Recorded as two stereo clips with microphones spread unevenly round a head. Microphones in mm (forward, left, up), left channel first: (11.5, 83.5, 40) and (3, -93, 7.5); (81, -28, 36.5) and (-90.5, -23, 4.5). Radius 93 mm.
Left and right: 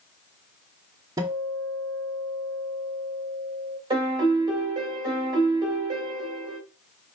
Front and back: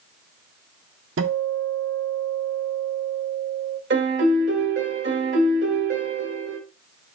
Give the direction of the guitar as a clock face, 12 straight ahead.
6 o'clock.